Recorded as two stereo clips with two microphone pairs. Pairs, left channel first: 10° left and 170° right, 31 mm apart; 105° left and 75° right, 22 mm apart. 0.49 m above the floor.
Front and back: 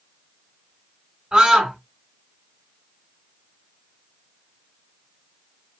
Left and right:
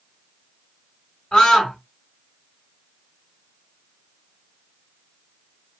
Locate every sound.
1.3 s a scream: 135° left, 1.3 m